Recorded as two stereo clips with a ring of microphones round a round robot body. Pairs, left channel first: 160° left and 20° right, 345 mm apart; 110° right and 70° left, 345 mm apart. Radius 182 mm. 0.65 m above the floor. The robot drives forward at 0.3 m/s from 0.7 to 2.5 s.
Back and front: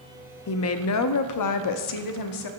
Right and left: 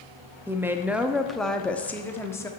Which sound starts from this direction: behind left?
A woman speaking, at 0.5 s.